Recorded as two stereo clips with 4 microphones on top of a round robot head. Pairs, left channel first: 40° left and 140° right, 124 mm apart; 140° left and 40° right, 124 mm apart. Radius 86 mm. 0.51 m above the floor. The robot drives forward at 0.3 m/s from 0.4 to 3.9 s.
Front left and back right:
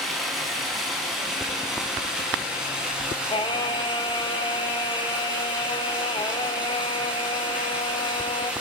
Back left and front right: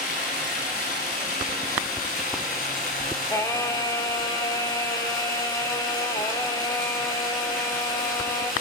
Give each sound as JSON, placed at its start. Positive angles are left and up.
{"t": 0.0, "sound": "running water", "azimuth_deg": 130, "distance_m": 5.0}
{"t": 3.3, "sound": "singing", "azimuth_deg": 75, "distance_m": 1.9}